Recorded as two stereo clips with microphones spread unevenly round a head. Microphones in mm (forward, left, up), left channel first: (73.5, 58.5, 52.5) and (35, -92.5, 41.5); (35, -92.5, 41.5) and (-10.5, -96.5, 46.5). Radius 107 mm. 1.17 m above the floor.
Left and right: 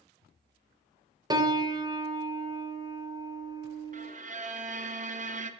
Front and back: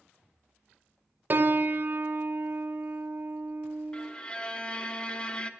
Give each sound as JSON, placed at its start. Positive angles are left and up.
{"t": 1.3, "sound": "a piano", "azimuth_deg": -150, "distance_m": 0.6}
{"t": 3.9, "sound": "a violin", "azimuth_deg": -65, "distance_m": 0.7}